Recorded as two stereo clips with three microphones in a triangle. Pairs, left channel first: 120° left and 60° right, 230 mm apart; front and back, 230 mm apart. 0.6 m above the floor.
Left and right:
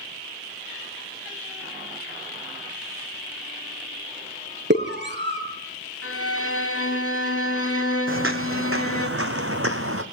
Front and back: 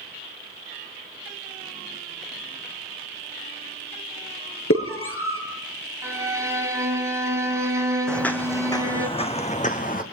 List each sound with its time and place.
4.7 s a scream: 20° right, 8 m
6.0 s a violin: 105° left, 4.5 m
8.1 s footsteps: 85° right, 1.9 m; by 10.0 s 50° right, 2.5 m